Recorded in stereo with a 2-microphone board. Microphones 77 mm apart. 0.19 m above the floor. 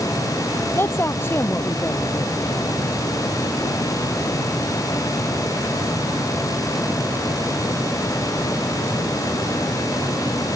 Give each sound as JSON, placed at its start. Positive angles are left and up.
{"t": 0.8, "sound": "a woman speaking", "side_deg": 30}